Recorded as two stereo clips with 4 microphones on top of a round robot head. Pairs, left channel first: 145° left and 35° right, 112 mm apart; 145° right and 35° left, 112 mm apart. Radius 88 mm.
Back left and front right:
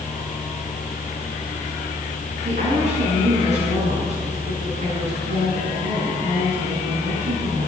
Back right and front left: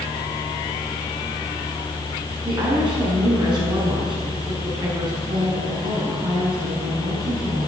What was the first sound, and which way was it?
A woman speaking, 15° right.